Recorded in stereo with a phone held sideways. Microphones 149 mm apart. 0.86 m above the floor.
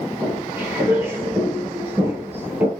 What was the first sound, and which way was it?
Footsteps, 15° right (ahead or behind).